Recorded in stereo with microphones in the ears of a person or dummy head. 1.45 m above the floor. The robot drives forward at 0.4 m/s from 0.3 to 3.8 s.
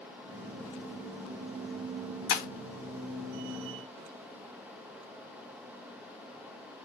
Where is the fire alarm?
I don't hear a fire alarm.